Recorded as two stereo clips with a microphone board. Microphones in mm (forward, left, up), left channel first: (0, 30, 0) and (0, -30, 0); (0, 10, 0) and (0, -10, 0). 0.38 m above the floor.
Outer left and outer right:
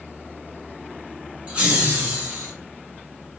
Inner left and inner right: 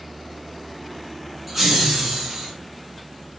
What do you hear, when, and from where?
1.5 s laughter: 20° right (ahead or behind), 1.1 m; by 2.5 s 35° right (ahead or behind), 1.4 m